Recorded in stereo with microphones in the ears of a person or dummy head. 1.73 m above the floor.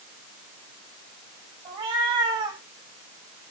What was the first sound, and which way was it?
A cat meowing, 35° right (ahead or behind).